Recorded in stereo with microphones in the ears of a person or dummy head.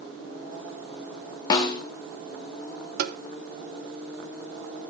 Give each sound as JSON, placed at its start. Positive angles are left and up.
{"t": 1.5, "sound": "a snare drum", "side_deg": 25, "distance_m": 1.2}
{"t": 3.0, "sound": "tapping", "side_deg": -60, "distance_m": 0.8}